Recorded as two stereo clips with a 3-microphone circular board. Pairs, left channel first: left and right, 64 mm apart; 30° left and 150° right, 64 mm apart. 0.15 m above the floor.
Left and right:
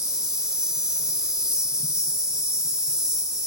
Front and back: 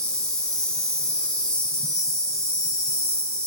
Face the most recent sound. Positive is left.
turn(degrees=-30)